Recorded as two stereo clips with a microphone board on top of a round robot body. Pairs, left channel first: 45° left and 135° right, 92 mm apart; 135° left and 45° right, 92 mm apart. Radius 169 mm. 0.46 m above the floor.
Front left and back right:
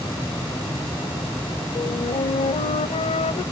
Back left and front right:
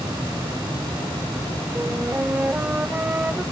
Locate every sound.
1.8 s a flute: 30° left